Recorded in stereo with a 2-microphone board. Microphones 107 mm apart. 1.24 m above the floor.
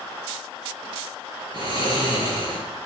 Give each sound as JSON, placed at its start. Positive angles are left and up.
{"t": 1.5, "sound": "snoring", "side_deg": -45, "distance_m": 4.5}